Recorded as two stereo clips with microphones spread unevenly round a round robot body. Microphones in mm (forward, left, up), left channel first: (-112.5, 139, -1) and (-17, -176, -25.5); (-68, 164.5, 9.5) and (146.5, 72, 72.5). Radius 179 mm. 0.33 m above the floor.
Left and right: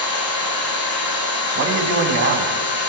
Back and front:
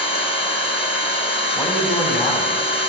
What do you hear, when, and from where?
0.0 s an engine running: 110° left, 5.5 m
1.6 s a man speaking: 120° right, 3 m